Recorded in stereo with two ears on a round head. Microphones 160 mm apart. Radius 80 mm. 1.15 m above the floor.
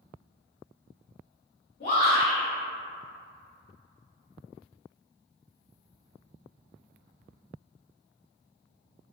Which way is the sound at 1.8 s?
55° left (ahead or behind).